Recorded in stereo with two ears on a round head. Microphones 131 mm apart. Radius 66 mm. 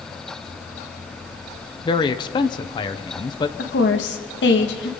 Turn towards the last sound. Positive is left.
turn(degrees=85)